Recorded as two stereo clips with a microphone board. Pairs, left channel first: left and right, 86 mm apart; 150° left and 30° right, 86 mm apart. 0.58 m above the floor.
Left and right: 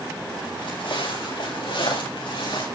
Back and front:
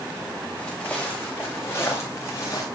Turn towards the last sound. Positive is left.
turn(degrees=100)